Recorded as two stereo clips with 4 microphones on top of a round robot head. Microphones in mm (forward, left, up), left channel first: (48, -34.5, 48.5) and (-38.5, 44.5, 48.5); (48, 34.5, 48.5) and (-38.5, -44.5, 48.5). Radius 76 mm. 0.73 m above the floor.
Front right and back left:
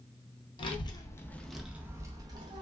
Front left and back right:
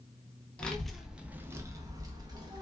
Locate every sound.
0.6 s a child speaking: 35° right, 0.6 m; by 2.6 s 175° left, 0.8 m